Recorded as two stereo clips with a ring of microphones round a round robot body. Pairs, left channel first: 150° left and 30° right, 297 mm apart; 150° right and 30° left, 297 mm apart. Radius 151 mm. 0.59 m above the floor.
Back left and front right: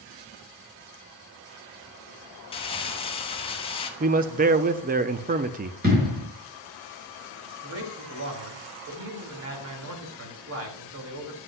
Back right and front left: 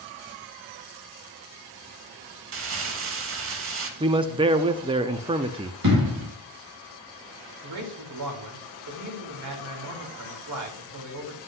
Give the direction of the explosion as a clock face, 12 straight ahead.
11 o'clock.